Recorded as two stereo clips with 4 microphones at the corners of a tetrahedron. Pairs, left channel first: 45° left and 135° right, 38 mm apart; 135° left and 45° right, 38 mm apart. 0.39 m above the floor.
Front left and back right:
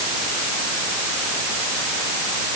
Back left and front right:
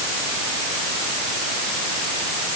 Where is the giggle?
No giggle in this recording.